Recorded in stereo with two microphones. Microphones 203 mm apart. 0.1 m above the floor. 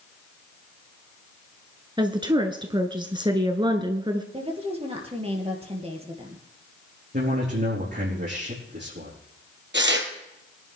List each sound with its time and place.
2.0 s a woman speaking: 20° right (ahead or behind), 1.1 m
4.3 s a woman speaking: 30° right (ahead or behind), 2.5 m
7.1 s a man speaking: 55° right (ahead or behind), 5 m
9.7 s tearing paper: 65° right (ahead or behind), 2 m